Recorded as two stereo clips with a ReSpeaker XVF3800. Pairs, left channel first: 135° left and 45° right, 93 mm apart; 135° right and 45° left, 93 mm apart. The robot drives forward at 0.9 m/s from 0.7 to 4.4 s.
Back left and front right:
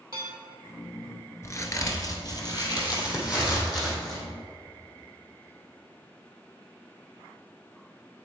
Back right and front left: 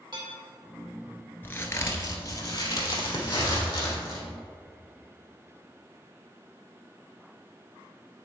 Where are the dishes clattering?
5° left, 2.5 m.